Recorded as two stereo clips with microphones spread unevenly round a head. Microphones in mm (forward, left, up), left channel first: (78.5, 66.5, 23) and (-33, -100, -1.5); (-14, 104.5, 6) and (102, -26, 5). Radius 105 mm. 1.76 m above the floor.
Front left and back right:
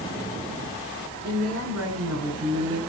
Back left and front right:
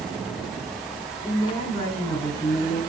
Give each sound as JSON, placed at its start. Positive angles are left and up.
{"t": 1.2, "sound": "a woman speaking", "azimuth_deg": -155, "distance_m": 6.5}